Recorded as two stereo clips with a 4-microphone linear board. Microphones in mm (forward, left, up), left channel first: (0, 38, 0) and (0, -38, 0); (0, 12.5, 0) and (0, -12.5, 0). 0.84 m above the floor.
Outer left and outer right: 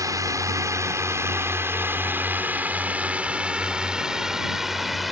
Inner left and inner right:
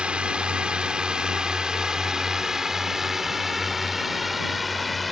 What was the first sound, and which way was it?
A drone, 50° right (ahead or behind).